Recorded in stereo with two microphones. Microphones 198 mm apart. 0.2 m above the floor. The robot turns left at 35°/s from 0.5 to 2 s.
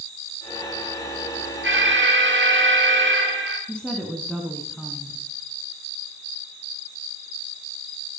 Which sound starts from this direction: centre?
A woman speaking, at 3.7 s.